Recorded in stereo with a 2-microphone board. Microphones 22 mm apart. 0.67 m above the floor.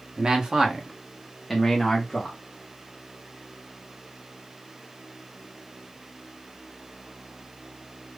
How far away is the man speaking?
About 0.9 m.